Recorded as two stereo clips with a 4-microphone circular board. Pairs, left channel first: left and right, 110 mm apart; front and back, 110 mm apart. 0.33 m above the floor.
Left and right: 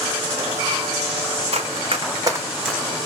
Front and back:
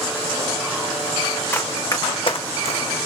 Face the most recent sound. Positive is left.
turn(degrees=10)